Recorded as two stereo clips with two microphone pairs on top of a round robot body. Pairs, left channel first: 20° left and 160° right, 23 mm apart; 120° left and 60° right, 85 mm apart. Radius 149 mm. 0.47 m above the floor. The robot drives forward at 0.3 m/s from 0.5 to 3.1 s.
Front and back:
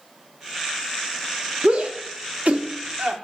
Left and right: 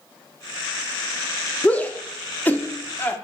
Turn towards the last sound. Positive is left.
turn(degrees=-175)